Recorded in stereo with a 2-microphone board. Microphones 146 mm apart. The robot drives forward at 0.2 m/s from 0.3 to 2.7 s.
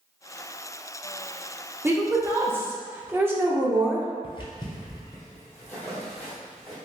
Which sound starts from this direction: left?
Footsteps, at 4.2 s.